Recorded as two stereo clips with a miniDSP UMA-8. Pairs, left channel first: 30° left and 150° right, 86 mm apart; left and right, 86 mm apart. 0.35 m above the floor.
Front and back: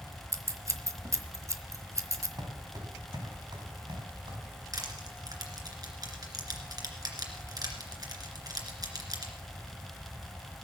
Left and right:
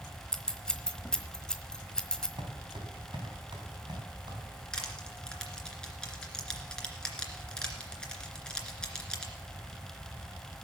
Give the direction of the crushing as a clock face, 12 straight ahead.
6 o'clock.